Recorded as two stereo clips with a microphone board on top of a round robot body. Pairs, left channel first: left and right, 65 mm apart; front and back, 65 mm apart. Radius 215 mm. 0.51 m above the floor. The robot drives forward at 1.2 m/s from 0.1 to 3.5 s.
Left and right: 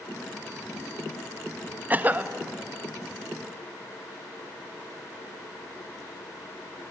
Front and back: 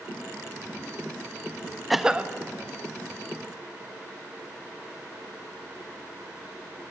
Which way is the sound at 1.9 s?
90° right.